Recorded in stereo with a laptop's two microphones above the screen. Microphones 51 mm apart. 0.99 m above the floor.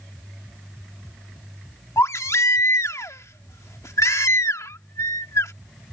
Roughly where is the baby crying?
Left.